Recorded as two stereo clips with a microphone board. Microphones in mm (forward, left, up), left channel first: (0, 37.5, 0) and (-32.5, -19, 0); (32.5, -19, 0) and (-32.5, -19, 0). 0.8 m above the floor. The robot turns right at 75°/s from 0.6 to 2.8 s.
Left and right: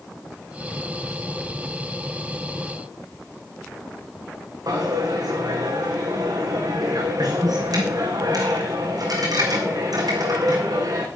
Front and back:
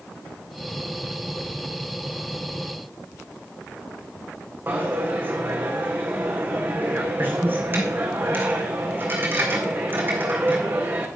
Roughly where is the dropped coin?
Behind right.